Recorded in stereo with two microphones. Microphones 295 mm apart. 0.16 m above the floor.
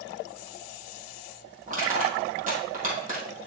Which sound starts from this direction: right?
Crushing, at 1.7 s.